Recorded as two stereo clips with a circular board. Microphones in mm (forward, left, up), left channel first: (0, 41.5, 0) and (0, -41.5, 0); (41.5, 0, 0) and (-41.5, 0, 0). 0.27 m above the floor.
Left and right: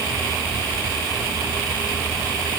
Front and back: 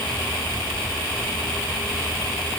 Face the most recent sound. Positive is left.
No sound to turn to.